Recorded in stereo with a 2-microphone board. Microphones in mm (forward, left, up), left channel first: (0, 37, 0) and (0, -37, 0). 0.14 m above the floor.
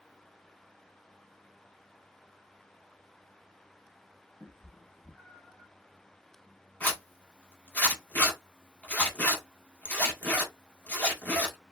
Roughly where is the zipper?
Left.